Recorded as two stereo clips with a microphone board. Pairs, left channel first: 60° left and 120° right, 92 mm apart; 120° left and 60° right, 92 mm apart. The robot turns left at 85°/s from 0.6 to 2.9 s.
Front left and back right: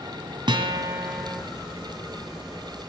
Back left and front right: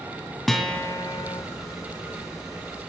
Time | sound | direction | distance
0.5 | a guitar | 150° right | 2.5 m